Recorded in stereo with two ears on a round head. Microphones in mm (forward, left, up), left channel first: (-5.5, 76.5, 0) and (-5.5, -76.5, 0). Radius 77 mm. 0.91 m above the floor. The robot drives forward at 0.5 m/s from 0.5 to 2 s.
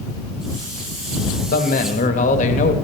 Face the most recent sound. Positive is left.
turn(degrees=45)  # may be behind; listen again after turning